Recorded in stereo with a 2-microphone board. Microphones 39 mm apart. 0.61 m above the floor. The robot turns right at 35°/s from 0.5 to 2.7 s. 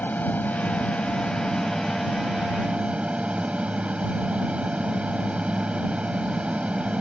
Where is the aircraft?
135° left; by 7.0 s 150° right.